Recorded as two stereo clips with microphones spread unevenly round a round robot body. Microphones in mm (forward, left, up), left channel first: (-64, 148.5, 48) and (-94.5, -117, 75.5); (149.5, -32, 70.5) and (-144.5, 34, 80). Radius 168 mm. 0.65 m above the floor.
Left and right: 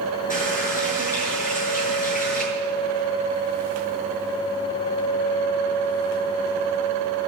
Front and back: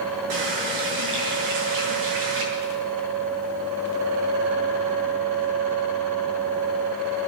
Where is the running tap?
145° left, 8 m.